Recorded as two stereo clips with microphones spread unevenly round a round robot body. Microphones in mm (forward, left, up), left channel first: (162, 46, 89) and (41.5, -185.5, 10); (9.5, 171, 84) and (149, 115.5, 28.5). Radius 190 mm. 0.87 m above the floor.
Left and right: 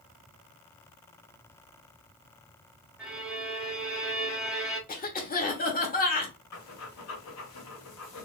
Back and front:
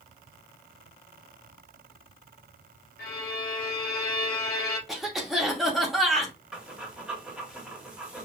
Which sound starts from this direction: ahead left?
Breathing, at 6.5 s.